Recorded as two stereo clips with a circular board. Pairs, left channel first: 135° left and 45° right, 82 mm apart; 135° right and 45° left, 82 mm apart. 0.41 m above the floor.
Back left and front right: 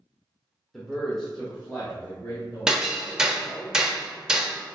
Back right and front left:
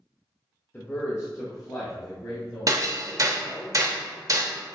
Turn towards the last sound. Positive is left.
turn(degrees=35)